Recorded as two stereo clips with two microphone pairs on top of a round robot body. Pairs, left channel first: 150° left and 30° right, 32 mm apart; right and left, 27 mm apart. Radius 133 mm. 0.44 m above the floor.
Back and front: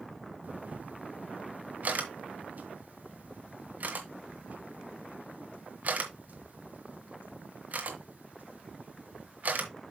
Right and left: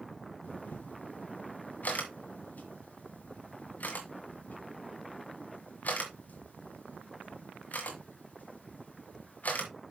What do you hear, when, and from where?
0.4 s a camera shutter: 65° right, 1.8 m